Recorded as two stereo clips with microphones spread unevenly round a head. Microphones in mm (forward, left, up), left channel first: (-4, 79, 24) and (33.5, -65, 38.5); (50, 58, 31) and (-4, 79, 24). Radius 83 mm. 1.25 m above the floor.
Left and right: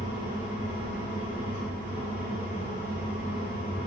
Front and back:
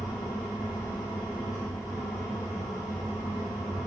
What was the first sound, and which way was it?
A fan, 40° right.